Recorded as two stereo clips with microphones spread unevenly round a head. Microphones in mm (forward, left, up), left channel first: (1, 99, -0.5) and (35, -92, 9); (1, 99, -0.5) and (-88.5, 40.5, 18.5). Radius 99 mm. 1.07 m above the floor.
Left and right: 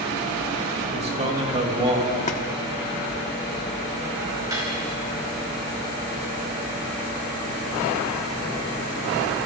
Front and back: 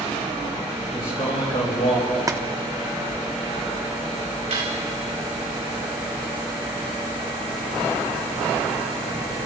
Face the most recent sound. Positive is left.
turn(degrees=-155)